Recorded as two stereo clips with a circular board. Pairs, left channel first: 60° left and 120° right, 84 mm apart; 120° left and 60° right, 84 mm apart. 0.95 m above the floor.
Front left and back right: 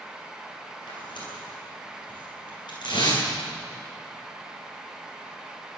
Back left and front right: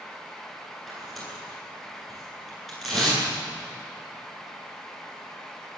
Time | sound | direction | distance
0.9 | tearing paper | 30° left | 9.5 m